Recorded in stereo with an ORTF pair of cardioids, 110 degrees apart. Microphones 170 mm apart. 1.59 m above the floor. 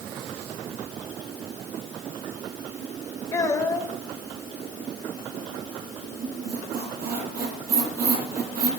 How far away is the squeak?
About 7.5 m.